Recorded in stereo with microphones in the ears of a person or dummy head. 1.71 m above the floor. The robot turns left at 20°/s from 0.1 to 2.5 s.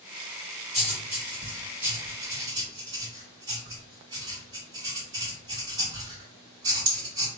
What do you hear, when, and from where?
0.7 s writing: centre (ahead or behind), 1.9 m; by 7.3 s 25° right (ahead or behind), 1.9 m